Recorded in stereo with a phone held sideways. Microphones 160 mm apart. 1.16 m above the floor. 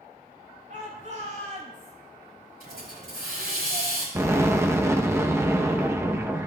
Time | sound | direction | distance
0.7 | a shout | 55° right (ahead or behind) | 5.5 m
2.6 | a hiss | 85° right | 5 m
4.2 | an explosion | 15° right (ahead or behind) | 0.9 m